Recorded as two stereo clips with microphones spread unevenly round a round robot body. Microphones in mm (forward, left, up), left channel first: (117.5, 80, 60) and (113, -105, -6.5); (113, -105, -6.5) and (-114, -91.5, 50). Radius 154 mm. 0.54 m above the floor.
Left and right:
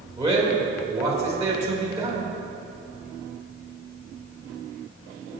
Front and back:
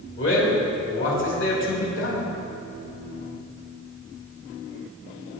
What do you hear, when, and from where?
0.2 s a man speaking: 25° right, 3.5 m